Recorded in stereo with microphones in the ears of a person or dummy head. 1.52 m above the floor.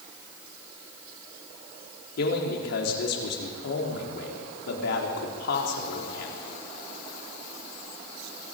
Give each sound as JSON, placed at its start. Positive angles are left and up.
{"t": 2.2, "sound": "a man speaking", "side_deg": 75, "distance_m": 4.0}